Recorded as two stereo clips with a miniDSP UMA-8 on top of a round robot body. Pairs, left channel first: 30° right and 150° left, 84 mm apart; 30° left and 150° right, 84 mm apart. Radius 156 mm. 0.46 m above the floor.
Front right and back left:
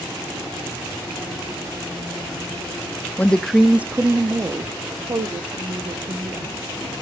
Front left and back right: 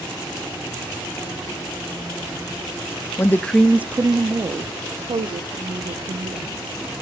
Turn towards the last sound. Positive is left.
turn(degrees=-165)